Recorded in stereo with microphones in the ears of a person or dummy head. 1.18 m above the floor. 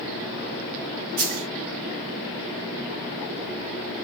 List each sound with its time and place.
1.2 s a dropped coin: 50° right (ahead or behind), 1.2 m